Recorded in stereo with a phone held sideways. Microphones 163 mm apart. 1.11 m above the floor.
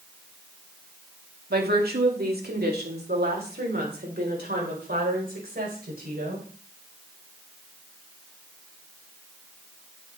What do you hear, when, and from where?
1.5 s a woman speaking: 75° right (ahead or behind), 1.9 m; by 6.5 s 70° right (ahead or behind), 5 m